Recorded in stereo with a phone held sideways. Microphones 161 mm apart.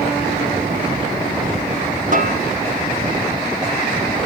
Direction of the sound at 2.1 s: 55° right (ahead or behind).